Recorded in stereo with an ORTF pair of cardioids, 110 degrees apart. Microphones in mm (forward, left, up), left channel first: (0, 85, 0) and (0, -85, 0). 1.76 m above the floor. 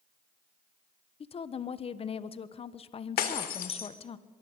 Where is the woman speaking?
35° left, 1.3 m.